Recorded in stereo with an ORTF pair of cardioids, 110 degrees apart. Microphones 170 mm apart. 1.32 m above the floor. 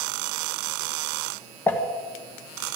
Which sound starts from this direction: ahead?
Crumpling, at 1.7 s.